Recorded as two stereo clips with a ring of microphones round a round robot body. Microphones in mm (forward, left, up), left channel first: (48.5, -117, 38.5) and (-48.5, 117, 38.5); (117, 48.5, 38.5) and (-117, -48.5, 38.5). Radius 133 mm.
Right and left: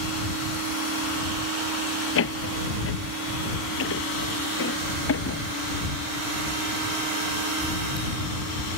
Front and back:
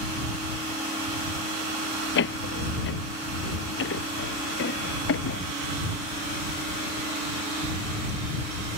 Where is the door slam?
25° right.